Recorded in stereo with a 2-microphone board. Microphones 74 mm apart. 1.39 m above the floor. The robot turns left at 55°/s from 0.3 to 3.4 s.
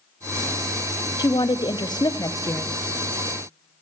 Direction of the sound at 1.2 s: 115° left.